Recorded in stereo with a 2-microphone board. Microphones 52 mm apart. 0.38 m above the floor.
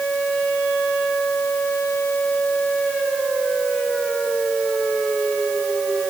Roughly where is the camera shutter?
No camera shutter in this recording.